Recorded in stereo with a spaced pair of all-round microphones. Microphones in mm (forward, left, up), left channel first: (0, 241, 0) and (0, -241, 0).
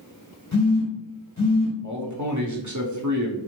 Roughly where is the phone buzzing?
Left.